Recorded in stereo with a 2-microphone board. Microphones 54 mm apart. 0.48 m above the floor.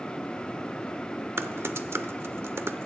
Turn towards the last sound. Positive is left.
turn(degrees=-50)  # may be behind; listen again after turning